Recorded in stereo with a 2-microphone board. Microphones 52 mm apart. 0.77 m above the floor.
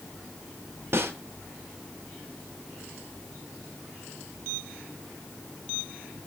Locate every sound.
0.9 s a snare drum: 55° right (ahead or behind), 1.8 m